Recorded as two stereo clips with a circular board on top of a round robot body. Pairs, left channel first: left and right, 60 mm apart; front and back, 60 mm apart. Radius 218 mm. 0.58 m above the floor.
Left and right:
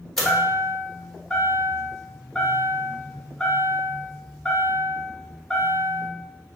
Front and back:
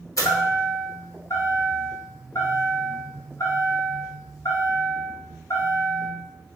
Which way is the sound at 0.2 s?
5° left.